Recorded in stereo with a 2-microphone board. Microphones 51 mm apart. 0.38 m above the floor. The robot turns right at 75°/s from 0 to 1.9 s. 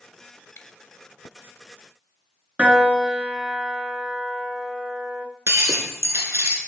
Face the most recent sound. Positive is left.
turn(degrees=-75)  # may be behind; listen again after turning